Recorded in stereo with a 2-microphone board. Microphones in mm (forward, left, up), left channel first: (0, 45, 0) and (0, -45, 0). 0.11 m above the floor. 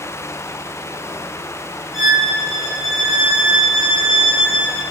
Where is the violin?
5° right (ahead or behind), 5.5 m.